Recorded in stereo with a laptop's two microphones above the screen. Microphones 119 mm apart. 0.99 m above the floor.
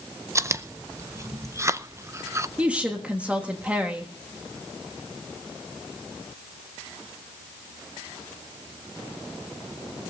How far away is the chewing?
About 0.6 m.